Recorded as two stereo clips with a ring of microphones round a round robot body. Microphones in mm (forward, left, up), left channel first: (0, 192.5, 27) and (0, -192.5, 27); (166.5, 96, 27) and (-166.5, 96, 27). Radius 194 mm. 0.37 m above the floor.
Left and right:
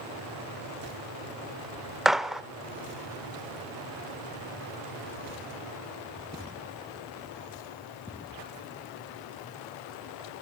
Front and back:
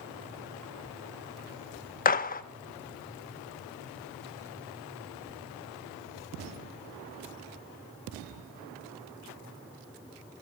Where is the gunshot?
Straight ahead, 0.5 m.